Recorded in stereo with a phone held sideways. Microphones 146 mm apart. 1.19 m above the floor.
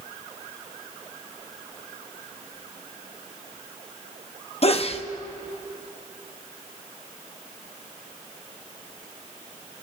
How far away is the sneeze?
About 0.7 m.